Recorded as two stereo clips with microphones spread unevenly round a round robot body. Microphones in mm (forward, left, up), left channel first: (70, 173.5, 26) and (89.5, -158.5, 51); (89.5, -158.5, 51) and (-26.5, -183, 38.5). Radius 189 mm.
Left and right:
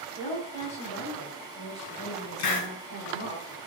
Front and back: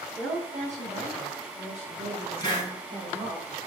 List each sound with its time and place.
0.1 s a woman speaking: 170° left, 4.5 m; by 3.4 s 150° left, 2.5 m
2.4 s a hiss: 90° left, 3.5 m